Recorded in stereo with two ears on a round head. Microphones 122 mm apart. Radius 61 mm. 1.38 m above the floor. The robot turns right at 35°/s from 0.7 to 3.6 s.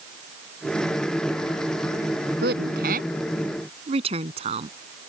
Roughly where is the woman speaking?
Right.